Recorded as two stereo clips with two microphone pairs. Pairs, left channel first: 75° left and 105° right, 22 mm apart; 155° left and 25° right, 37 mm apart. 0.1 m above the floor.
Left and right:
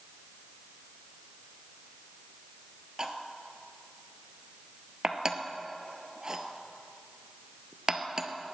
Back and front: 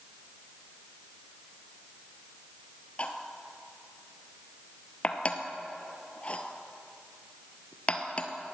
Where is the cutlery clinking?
160° right, 1.2 m.